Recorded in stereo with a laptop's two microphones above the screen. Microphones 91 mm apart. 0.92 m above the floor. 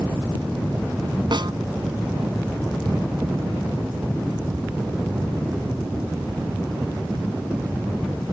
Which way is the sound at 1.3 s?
60° right (ahead or behind).